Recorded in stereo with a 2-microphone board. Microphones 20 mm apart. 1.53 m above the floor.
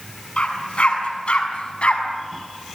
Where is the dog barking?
65° left (ahead or behind), 6.5 m; by 2.0 s 70° left (ahead or behind), 5 m.